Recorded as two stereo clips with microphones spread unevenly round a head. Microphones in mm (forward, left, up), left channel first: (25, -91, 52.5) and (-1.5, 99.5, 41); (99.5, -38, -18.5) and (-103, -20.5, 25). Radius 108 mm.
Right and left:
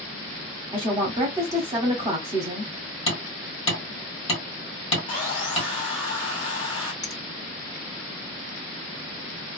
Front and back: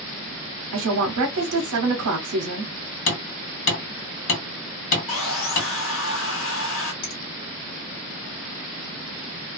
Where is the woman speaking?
165° left, 0.7 m.